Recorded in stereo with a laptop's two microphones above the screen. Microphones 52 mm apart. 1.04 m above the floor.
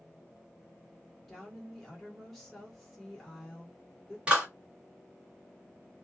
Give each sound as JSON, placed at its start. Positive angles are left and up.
{"t": 1.3, "sound": "a woman speaking", "side_deg": 5, "distance_m": 1.2}
{"t": 4.3, "sound": "a clap", "side_deg": -20, "distance_m": 1.2}